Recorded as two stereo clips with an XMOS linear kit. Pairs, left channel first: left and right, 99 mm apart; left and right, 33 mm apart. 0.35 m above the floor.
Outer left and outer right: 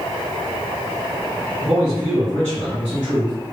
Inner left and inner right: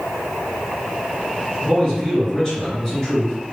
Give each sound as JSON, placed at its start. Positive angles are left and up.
{"t": 1.6, "sound": "a man speaking", "side_deg": 15, "distance_m": 1.8}